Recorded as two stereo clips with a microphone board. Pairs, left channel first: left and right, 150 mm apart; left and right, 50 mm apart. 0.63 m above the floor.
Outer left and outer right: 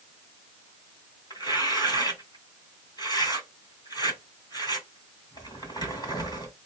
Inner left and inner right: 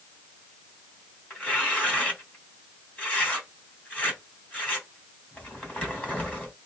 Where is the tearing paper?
25° left (ahead or behind), 2.5 m.